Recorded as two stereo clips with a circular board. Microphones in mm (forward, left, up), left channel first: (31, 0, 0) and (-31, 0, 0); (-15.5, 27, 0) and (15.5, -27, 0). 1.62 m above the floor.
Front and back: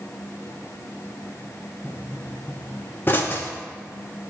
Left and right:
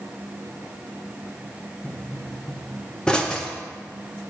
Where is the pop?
45° left, 0.8 m.